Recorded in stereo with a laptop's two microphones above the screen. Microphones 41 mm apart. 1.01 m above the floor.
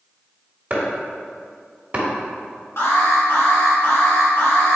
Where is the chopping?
35° right (ahead or behind), 1.3 m.